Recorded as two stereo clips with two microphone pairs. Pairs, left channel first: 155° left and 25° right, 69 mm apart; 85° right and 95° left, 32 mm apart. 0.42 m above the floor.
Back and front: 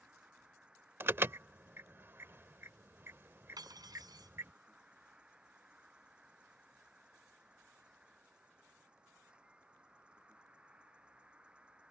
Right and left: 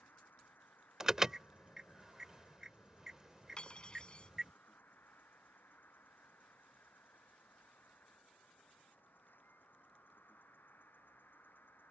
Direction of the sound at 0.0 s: 100° right.